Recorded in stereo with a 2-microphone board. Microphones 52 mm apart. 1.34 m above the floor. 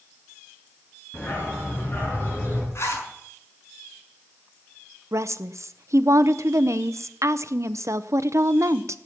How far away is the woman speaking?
About 0.7 m.